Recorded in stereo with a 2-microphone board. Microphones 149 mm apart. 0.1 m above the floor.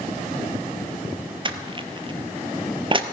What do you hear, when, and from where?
1.4 s crushing: 35° right (ahead or behind), 0.9 m